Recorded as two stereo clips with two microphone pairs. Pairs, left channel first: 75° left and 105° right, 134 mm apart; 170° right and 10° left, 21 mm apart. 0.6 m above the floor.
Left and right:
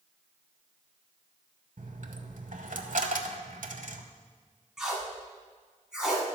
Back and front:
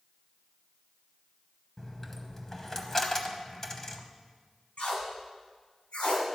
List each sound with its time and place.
1.8 s a dropped coin: 100° right, 0.8 m
4.8 s tape being pulled: 170° left, 2 m